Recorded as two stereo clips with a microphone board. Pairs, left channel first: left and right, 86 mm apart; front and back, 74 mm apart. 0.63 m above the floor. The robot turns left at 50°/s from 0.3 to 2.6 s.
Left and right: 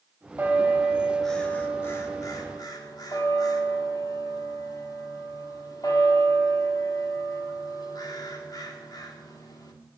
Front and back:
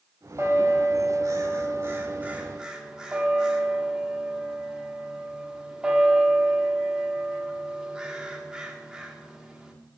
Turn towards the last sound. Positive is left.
turn(degrees=105)